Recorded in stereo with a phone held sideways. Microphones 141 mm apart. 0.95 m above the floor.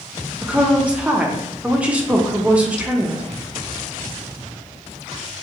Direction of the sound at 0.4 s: 10° right (ahead or behind).